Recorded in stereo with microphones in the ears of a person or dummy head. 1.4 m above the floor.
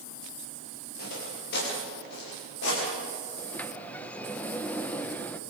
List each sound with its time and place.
1.0 s footsteps: 60° left (ahead or behind), 9.5 m; by 2.8 s 70° left (ahead or behind), 11 m
3.4 s a sliding door: 15° left (ahead or behind), 0.9 m